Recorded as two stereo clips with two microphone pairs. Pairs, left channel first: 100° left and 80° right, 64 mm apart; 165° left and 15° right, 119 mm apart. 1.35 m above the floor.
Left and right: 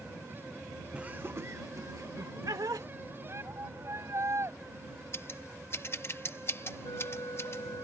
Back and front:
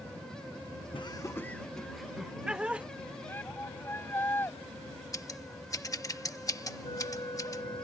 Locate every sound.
0.9 s laughter: 155° right; by 2.9 s 95° right
3.3 s a shout: 125° right
5.1 s scissors: 115° left
6.8 s a flute: 115° left